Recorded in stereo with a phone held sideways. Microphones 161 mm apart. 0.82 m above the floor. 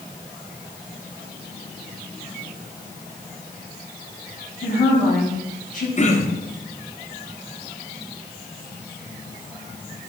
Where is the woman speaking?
55° left (ahead or behind), 5.5 m.